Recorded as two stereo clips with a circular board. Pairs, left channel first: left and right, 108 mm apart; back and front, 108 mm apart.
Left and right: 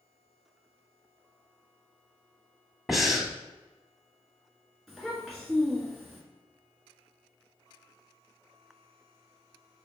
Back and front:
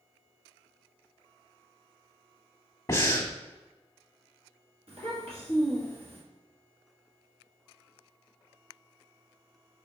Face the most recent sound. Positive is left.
turn(degrees=5)